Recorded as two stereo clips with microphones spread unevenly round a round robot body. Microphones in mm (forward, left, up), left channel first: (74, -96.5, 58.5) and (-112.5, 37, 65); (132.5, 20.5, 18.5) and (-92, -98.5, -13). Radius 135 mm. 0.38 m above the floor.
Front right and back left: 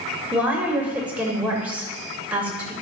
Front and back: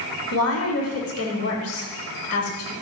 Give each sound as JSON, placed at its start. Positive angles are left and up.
{"t": 0.3, "sound": "a woman speaking", "azimuth_deg": 60, "distance_m": 2.0}